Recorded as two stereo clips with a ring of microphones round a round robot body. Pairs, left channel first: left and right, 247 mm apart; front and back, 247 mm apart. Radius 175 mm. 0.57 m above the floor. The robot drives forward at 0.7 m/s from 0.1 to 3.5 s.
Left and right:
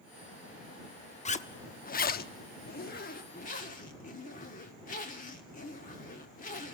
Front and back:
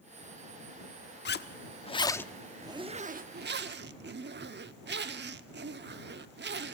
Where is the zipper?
35° left, 1.2 m; by 6.7 s 145° left, 1.2 m.